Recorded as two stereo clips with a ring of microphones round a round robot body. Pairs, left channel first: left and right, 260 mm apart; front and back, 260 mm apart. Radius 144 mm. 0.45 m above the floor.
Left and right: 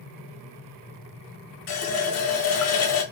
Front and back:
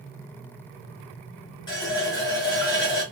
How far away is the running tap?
About 0.9 m.